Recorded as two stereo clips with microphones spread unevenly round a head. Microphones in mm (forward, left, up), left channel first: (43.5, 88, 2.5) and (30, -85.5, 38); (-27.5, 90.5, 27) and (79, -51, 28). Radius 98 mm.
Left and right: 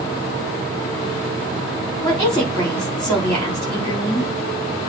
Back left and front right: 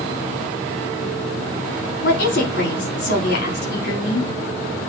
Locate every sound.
2.0 s a woman speaking: 170° left, 4 m